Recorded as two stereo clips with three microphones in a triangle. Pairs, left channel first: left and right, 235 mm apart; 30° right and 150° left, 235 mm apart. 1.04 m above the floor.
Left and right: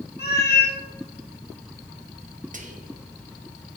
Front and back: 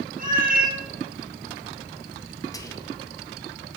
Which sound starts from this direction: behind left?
A cat meowing, at 0.2 s.